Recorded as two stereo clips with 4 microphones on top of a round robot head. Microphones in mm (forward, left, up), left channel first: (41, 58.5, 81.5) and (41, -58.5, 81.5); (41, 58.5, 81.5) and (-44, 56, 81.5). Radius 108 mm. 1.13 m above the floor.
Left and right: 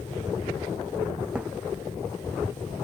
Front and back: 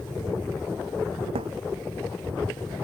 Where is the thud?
170° right.